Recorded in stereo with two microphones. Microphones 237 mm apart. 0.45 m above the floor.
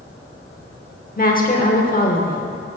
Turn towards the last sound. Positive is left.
turn(degrees=35)  # may be behind; listen again after turning